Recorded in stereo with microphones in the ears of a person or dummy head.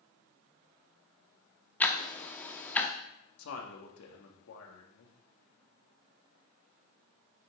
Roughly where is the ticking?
Centre.